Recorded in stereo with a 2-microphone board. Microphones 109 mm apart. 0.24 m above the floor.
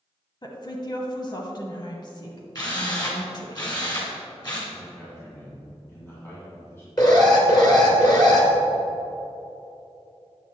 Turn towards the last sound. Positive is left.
turn(degrees=35)  # may be behind; listen again after turning